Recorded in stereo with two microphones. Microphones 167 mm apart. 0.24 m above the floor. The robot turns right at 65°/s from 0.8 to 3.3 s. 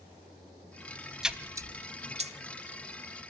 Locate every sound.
1.2 s a splash: 5° right (ahead or behind), 0.9 m; by 2.3 s 40° right (ahead or behind), 0.9 m